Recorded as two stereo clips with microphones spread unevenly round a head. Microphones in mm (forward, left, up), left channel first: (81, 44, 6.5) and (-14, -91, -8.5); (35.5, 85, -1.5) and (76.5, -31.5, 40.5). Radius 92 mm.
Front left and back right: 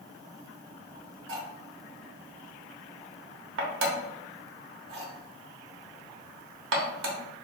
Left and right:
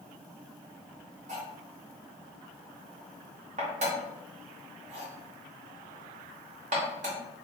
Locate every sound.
1.3 s cutlery clinking: 125° right, 0.8 m